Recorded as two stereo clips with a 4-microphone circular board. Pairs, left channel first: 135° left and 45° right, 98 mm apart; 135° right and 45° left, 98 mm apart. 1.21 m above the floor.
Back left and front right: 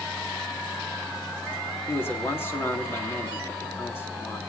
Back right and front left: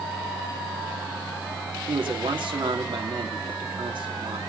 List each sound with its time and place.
1.9 s a man speaking: 70° left, 3 m